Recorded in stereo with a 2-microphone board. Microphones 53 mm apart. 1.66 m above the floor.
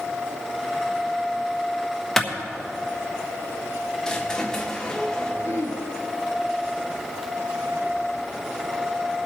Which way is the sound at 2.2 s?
5° left (ahead or behind).